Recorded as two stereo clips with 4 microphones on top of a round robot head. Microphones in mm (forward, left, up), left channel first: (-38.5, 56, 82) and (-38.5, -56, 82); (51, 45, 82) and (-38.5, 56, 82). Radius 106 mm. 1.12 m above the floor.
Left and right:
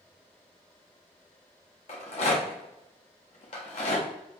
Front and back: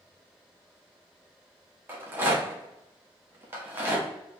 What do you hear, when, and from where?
1.9 s a rattle: 110° left, 0.8 m